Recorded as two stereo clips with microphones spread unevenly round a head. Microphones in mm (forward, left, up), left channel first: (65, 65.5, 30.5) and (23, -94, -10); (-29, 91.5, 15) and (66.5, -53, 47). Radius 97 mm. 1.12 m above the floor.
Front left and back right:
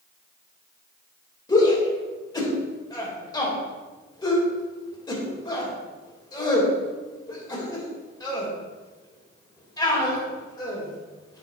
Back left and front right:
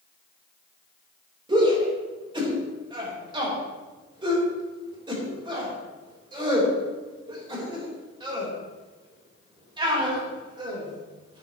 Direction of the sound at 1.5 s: 10° left.